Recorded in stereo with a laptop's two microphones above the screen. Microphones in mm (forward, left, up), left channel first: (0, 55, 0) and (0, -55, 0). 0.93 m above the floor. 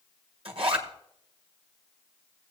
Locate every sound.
0.5 s a zipper: 50° right (ahead or behind), 1.5 m